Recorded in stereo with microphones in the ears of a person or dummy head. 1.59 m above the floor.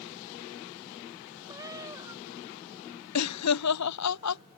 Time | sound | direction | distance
1.5 | a cat meowing | 25° right (ahead or behind) | ?
3.1 | laughter | 85° left | ?